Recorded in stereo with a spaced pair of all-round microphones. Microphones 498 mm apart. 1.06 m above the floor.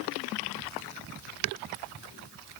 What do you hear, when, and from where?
Only background noise.